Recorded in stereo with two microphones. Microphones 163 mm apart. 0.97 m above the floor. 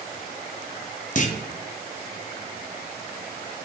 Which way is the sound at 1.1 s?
55° left (ahead or behind).